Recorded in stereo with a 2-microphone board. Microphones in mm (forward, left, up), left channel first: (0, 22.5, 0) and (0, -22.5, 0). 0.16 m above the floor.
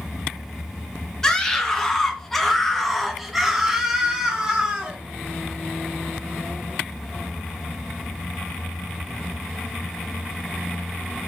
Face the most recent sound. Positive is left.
turn(degrees=-20)  # may be behind; listen again after turning